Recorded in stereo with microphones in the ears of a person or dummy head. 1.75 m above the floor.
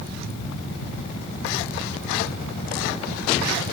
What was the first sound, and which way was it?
Only background noise.